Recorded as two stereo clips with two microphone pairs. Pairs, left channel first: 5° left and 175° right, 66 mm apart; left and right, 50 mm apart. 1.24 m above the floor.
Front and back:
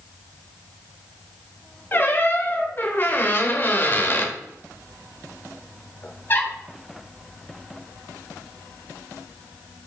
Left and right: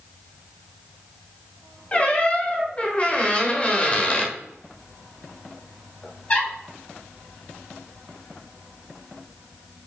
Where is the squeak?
45° left, 1.2 m.